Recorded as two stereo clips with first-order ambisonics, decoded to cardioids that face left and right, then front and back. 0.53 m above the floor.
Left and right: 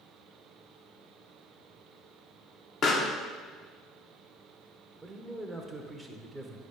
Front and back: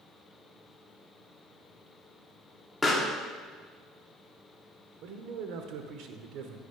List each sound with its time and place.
2.8 s a pop: 75° left, 1.1 m
5.0 s a man speaking: 175° right, 1.2 m